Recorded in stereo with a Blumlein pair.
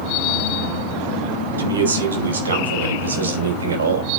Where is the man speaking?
70° right, 5.5 m; by 4.1 s 75° right, 4 m.